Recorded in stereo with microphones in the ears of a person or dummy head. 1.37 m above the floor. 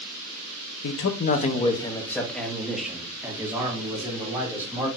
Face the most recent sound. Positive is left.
turn(degrees=-20)  # may be behind; listen again after turning